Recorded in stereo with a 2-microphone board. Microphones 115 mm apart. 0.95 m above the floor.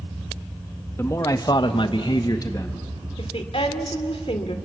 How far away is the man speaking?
About 1.6 m.